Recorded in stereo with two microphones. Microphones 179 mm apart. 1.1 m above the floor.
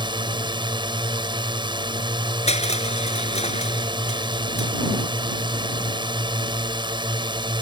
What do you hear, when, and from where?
0.0 s a drone: 25° right (ahead or behind)
2.5 s crushing: 35° left (ahead or behind)